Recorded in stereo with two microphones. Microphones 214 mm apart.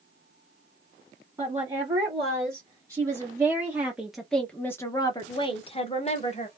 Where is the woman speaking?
20° right (ahead or behind), 1.9 m; by 6.5 s 30° left (ahead or behind), 1.1 m.